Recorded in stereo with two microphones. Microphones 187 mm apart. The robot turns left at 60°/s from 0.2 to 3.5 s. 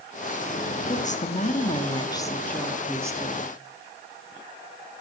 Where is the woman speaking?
110° left, 1.2 m; by 3.5 s 50° right, 1.2 m.